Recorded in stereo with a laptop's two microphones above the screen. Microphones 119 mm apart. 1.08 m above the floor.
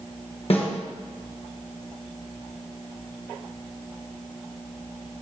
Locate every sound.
0.5 s a snare drum: 55° left (ahead or behind), 1.3 m